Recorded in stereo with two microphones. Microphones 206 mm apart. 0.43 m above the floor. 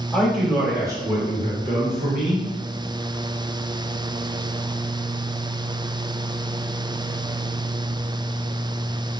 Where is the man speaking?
Centre (ahead or behind), 0.9 m; by 2.5 s 40° right (ahead or behind), 1.1 m.